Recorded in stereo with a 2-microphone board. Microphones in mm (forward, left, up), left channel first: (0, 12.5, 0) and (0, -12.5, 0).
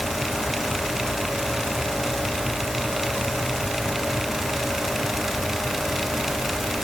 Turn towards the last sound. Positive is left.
No sound to turn to.